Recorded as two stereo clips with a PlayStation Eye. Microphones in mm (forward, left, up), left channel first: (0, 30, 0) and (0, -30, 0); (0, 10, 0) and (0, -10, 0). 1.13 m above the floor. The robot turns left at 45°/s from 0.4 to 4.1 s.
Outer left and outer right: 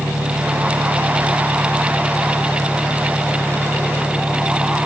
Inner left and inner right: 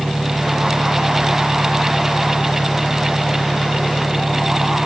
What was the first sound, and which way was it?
An engine running, 100° right.